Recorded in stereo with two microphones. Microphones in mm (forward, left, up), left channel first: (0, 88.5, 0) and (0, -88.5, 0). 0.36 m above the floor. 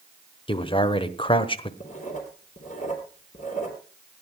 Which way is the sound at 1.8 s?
45° left (ahead or behind).